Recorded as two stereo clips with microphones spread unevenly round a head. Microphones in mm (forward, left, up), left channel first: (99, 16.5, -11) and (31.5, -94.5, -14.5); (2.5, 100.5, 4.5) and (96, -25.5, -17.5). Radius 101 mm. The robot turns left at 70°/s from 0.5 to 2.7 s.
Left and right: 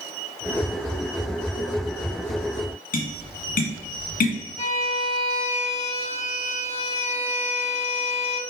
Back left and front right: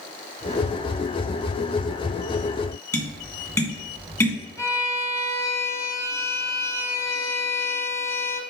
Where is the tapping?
55° left, 1.9 m.